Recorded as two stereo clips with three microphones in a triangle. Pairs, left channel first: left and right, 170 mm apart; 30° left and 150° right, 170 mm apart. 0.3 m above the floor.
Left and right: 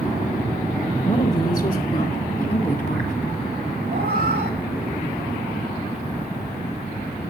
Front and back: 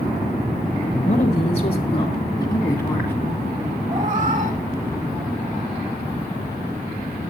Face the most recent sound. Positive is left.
turn(degrees=-110)